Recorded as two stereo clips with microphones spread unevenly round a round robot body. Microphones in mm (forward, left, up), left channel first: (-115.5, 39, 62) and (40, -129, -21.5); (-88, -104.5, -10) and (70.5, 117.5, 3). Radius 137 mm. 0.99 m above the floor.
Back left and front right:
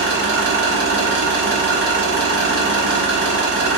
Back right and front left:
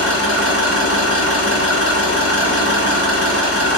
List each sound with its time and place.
0.0 s an engine running: 85° right, 1.1 m